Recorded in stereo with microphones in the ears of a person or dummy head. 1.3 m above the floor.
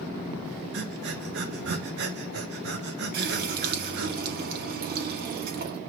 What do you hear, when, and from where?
0.7 s breathing: 65° right (ahead or behind), 1.2 m
3.1 s a running tap: 50° right (ahead or behind), 2 m